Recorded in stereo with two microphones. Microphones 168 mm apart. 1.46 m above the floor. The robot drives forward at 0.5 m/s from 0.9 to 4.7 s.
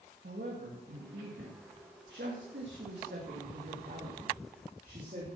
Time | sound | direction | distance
0.2 | a woman speaking | 75° right (ahead or behind) | 2 m